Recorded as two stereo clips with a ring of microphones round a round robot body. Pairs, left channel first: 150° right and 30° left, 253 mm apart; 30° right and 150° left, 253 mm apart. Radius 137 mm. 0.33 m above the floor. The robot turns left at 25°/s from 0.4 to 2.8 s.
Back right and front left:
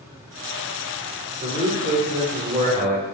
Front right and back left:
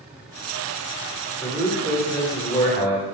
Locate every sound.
1.4 s a man speaking: 50° left, 1.0 m; by 3.0 s 15° left, 1.0 m